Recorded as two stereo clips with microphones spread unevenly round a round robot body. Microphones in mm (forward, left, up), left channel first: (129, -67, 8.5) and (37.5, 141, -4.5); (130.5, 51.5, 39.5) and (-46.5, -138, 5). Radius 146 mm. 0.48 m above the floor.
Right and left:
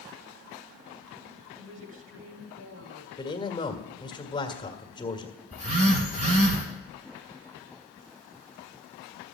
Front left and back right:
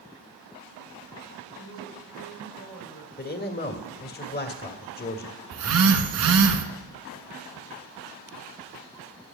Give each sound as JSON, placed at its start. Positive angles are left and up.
{"t": 1.6, "sound": "a woman speaking", "azimuth_deg": 90, "distance_m": 2.5}
{"t": 3.2, "sound": "a man speaking", "azimuth_deg": 0, "distance_m": 1.7}
{"t": 5.5, "sound": "a phone buzzing", "azimuth_deg": -175, "distance_m": 1.1}